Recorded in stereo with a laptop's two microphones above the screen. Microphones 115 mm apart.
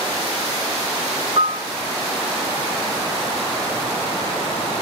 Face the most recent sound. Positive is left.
turn(degrees=-60)  # may be behind; listen again after turning